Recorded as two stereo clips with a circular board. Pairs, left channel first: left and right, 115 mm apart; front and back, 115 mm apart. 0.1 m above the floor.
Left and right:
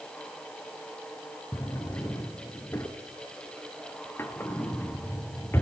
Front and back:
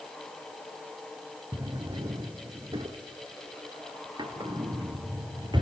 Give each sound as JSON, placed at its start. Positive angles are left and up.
{"t": 1.5, "sound": "a drawer", "azimuth_deg": 155, "distance_m": 1.3}